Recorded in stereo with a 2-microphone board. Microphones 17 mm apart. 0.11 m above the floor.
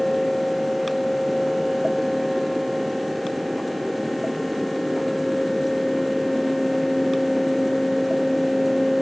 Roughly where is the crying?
No crying in this recording.